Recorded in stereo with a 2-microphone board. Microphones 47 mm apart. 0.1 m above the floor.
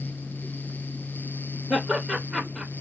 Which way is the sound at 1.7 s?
5° right (ahead or behind).